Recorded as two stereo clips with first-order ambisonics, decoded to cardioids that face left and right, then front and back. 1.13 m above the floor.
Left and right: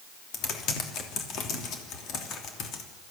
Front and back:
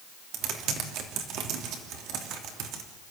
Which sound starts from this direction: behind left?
Typing on a keyboard, at 0.3 s.